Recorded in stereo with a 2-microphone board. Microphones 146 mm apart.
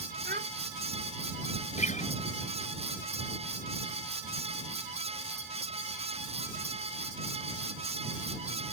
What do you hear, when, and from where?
0.2 s a child speaking: 85° right
1.8 s a guitar: 55° left (ahead or behind)